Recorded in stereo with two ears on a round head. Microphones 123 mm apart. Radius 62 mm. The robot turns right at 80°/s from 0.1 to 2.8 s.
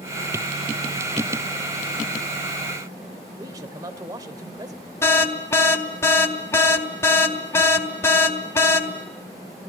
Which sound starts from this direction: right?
A man speaking, at 3.4 s.